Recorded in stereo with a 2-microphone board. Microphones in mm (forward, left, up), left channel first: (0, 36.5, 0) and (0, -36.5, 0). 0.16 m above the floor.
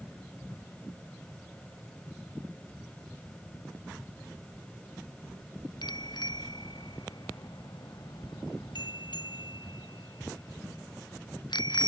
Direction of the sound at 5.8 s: 75° left (ahead or behind).